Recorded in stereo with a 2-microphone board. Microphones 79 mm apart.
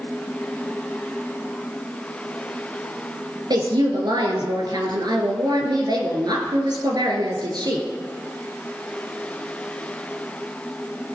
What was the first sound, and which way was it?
A woman speaking, 60° right (ahead or behind).